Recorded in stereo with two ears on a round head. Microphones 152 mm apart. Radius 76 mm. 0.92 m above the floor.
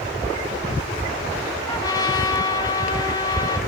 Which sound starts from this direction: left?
A trumpet, at 1.7 s.